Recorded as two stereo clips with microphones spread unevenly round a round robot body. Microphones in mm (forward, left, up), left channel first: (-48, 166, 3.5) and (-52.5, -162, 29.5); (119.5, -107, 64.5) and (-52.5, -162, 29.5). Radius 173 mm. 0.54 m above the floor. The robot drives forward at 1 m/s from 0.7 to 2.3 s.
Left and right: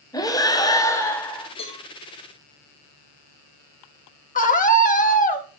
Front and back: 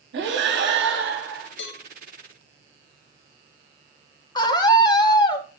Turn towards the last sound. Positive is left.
turn(degrees=80)